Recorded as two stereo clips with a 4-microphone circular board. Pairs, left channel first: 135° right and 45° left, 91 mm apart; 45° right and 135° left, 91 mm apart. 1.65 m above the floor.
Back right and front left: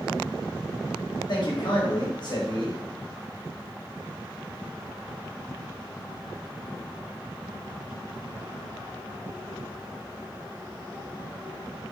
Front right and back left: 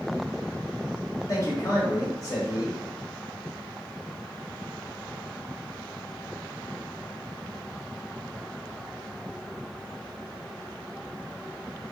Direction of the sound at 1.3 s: 100° right.